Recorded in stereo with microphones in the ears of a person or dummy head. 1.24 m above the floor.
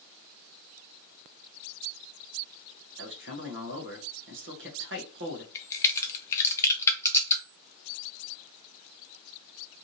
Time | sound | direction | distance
3.0 | a man speaking | 55° right (ahead or behind) | 0.8 m
5.5 | a crack | 15° left (ahead or behind) | 0.5 m